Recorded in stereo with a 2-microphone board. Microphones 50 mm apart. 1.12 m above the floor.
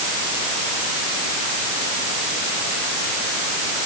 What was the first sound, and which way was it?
Only background noise.